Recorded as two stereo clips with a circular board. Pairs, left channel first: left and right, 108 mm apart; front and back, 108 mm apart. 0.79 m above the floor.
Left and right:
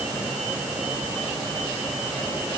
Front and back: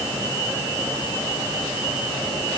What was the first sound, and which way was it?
Only background noise.